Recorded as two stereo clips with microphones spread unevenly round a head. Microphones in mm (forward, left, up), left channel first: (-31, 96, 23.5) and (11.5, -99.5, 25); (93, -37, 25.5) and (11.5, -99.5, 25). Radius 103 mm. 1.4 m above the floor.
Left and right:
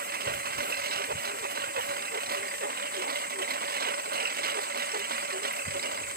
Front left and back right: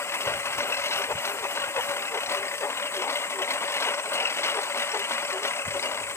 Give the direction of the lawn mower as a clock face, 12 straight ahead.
1 o'clock.